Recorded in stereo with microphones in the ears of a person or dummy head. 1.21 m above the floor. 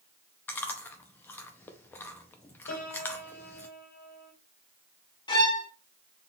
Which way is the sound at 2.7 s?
45° left (ahead or behind).